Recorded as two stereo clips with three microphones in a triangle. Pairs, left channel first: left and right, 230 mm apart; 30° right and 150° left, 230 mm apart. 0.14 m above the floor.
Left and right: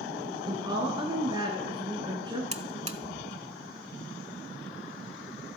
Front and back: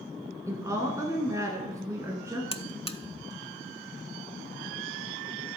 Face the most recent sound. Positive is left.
turn(degrees=-70)